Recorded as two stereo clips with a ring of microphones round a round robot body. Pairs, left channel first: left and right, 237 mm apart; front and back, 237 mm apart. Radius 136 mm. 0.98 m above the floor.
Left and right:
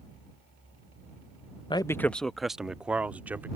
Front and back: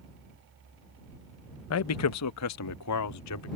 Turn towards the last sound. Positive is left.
turn(degrees=-5)